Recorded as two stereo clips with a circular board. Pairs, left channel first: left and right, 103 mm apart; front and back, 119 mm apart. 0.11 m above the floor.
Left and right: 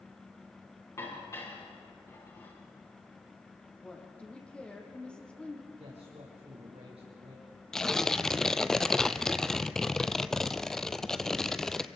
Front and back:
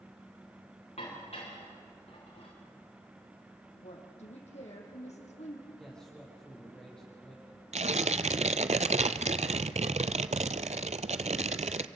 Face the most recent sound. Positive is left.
turn(degrees=175)